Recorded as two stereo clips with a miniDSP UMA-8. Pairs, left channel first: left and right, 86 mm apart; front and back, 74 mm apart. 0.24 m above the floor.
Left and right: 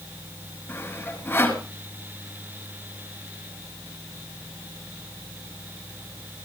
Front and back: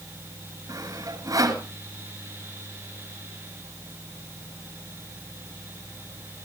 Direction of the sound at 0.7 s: 155° left.